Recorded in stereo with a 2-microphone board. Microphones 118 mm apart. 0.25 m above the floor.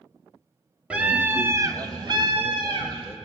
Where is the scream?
10° right (ahead or behind), 1.5 m; by 3.2 s 45° right (ahead or behind), 1.9 m.